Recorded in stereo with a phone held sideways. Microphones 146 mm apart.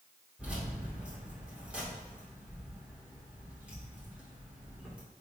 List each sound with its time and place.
0.4 s keys jangling: 10° right (ahead or behind), 2.5 m